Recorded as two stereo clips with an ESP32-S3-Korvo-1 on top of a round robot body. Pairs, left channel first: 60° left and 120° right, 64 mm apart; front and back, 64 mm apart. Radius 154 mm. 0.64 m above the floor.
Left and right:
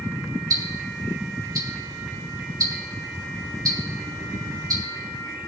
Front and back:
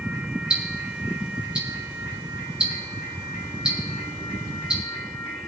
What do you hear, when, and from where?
0.5 s ticking: 105° right, 2.5 m